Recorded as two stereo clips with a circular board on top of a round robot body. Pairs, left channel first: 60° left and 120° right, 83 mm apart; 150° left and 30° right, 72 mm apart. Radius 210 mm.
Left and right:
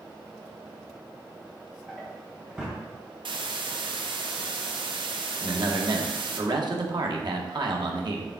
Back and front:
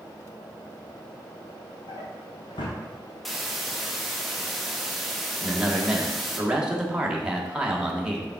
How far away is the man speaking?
About 1.6 m.